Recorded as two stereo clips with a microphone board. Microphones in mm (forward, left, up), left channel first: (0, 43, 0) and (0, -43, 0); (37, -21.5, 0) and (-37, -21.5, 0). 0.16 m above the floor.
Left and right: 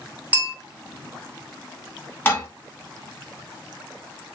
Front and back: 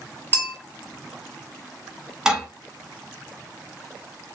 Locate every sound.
0.3 s a bell: 30° right, 1.3 m
2.2 s dishes clattering: 105° left, 0.8 m